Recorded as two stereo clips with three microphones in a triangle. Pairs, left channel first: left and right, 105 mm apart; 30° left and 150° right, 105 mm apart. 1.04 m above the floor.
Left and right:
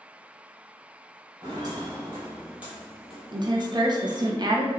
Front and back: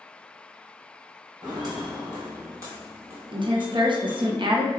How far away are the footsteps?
About 1.5 m.